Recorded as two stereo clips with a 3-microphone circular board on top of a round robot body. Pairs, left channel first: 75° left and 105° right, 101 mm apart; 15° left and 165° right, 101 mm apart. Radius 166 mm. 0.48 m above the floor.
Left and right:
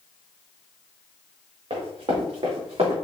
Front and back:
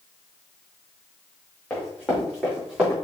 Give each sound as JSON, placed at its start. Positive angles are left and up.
{"t": 1.7, "sound": "running footsteps", "azimuth_deg": -70, "distance_m": 2.5}